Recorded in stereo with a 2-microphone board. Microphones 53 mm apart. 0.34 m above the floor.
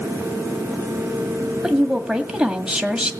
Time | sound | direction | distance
1.6 | a woman speaking | 10° right (ahead or behind) | 2.0 m